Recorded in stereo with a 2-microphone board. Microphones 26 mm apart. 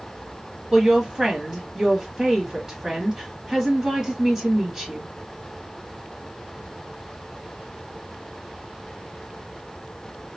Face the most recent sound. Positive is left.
turn(degrees=-20)  # may be behind; listen again after turning